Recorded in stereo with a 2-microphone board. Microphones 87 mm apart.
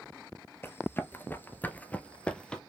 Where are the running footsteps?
25° left (ahead or behind), 0.9 m; by 2.6 s 10° left (ahead or behind), 1.1 m.